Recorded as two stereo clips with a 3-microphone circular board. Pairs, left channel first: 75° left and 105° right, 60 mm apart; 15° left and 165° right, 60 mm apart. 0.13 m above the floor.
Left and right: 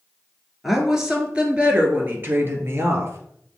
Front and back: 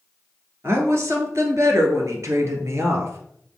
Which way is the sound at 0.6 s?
170° left.